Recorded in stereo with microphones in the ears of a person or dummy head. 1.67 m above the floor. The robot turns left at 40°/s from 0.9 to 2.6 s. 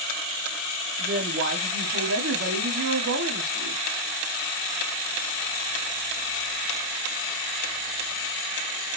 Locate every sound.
1.0 s a woman speaking: 45° right, 1.4 m; by 3.8 s 110° right, 1.4 m